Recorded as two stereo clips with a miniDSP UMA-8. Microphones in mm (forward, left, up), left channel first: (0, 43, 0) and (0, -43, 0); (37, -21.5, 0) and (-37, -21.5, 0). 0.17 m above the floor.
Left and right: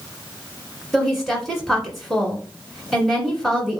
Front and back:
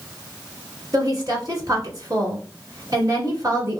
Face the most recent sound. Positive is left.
turn(degrees=180)